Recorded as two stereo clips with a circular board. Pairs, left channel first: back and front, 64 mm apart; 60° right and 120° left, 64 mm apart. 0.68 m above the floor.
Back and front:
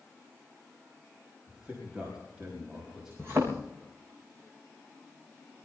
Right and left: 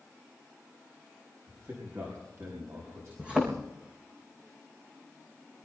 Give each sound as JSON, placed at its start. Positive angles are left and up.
{"t": 1.5, "sound": "a man speaking", "azimuth_deg": 80, "distance_m": 5.0}
{"t": 3.2, "sound": "a thud", "azimuth_deg": 50, "distance_m": 4.5}